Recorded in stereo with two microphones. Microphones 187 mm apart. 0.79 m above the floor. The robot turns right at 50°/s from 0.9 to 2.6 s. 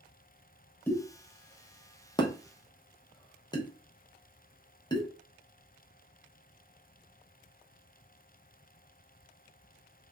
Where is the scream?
I don't hear a scream.